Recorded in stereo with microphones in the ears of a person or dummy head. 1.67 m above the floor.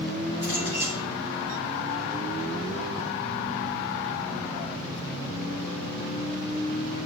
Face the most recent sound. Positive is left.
turn(degrees=-30)  # may be behind; listen again after turning